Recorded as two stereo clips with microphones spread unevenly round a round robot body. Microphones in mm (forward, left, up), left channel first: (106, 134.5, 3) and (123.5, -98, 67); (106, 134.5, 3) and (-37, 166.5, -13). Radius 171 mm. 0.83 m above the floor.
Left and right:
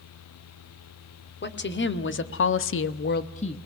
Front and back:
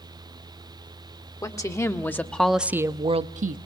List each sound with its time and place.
1.4 s a woman speaking: 55° left, 2 m; by 3.6 s 160° left, 0.9 m